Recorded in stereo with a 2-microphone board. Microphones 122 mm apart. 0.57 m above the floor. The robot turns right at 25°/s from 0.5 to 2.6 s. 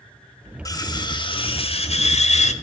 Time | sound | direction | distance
0.7 | cutlery clinking | 30° left | 1.3 m